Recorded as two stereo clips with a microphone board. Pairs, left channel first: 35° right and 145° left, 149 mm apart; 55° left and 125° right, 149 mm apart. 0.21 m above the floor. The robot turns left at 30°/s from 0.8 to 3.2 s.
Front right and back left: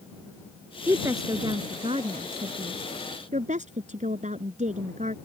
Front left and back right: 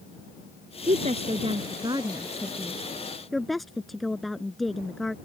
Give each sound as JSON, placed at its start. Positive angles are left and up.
{"t": 0.9, "sound": "a woman speaking", "azimuth_deg": -145}